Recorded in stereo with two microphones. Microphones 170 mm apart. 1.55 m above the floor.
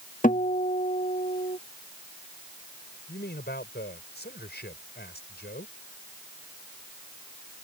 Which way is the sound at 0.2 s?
50° left (ahead or behind).